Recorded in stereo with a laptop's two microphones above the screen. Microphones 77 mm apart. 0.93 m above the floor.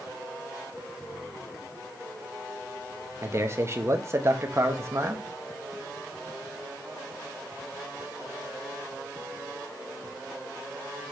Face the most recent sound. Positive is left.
turn(degrees=-35)  # may be behind; listen again after turning